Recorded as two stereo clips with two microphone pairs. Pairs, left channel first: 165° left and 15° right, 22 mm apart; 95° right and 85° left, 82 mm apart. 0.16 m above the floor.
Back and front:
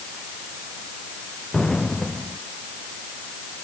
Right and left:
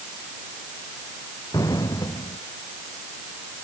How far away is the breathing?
I don't hear breathing.